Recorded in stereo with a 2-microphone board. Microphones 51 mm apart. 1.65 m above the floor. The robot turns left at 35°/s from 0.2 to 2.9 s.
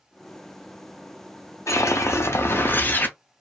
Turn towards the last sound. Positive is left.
turn(degrees=40)